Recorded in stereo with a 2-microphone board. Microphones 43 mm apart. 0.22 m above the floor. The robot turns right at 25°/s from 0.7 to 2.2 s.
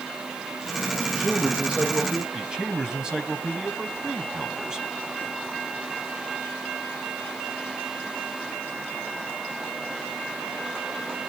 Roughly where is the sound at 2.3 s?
Centre.